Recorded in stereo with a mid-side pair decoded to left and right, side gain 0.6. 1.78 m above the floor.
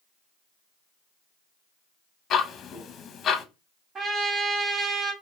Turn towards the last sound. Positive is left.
turn(degrees=-40)